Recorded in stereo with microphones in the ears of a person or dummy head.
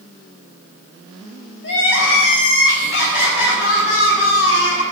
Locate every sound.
1.6 s crying: 75° left (ahead or behind), 3.5 m